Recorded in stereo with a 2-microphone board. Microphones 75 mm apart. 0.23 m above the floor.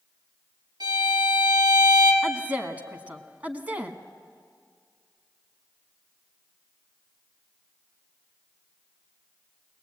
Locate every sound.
0.8 s a violin: 65° right (ahead or behind), 4.5 m
2.2 s a woman speaking: 20° right (ahead or behind), 1.5 m